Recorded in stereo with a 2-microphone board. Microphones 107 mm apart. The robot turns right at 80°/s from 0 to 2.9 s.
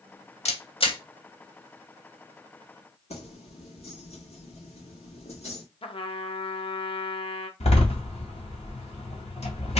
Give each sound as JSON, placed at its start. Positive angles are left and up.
{"t": 0.5, "sound": "a camera shutter", "side_deg": 85, "distance_m": 0.8}
{"t": 3.1, "sound": "keys jangling", "side_deg": 80, "distance_m": 1.5}
{"t": 5.8, "sound": "a trumpet", "side_deg": 60, "distance_m": 0.5}
{"t": 7.6, "sound": "a door slam", "side_deg": 80, "distance_m": 1.8}